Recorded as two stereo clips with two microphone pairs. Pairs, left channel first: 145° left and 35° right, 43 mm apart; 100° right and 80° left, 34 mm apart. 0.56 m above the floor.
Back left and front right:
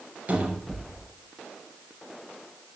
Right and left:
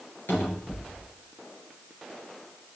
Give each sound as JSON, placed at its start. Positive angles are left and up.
{"t": 0.3, "sound": "a cupboard door", "azimuth_deg": -85, "distance_m": 4.0}